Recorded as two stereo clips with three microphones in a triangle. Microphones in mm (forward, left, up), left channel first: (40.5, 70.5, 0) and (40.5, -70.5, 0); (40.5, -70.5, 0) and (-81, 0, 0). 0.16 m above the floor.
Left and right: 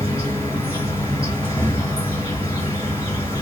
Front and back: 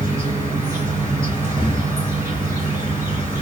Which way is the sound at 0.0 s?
100° left.